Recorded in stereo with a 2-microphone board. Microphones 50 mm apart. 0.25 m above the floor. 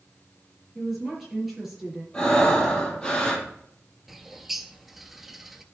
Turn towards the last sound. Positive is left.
turn(degrees=-5)  # may be behind; listen again after turning